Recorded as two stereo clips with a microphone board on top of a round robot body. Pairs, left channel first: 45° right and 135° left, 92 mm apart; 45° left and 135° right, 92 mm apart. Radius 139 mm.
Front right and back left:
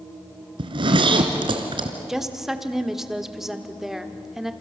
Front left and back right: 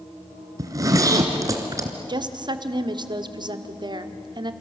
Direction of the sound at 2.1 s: 140° right.